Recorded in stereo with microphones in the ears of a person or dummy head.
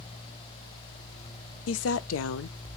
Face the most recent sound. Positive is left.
turn(degrees=80)